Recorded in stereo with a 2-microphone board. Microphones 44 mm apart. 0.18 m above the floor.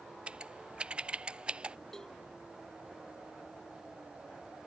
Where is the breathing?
No breathing in this recording.